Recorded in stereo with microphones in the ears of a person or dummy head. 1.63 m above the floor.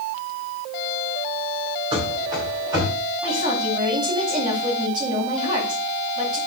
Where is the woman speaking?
25° right (ahead or behind), 8 m.